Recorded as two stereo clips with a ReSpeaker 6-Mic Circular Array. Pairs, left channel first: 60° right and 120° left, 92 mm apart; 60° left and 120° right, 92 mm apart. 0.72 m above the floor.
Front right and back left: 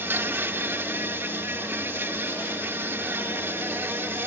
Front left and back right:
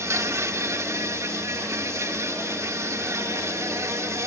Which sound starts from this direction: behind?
An insect, at 0.0 s.